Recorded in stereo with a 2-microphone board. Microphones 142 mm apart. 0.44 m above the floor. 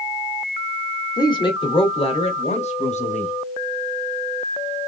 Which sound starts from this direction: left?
A woman speaking, at 1.2 s.